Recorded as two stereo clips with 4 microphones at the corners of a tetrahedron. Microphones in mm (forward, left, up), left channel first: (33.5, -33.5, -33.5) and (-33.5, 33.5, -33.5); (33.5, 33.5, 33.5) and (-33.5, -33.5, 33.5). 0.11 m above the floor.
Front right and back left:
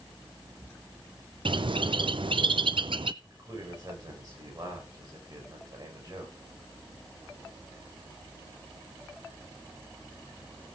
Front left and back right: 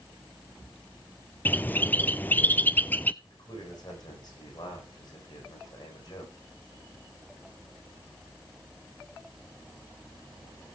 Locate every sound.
1.4 s a bird: 115° left, 0.6 m
3.2 s a man speaking: 90° left, 9.5 m